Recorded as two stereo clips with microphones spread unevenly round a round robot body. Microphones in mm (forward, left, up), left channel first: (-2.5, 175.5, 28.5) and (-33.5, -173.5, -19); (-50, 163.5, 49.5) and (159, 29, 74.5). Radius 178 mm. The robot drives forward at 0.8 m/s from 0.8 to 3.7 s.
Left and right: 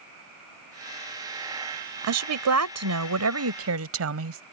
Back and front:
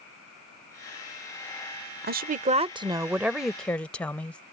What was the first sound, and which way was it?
A woman speaking, 80° right.